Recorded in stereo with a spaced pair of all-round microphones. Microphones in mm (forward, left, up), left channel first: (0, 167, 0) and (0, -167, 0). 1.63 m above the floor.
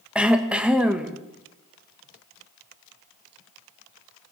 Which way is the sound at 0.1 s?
5° right (ahead or behind).